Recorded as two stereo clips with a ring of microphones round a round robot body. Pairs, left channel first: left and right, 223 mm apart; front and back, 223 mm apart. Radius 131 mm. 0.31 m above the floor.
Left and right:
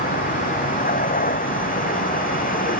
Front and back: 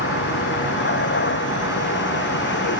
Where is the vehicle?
40° left.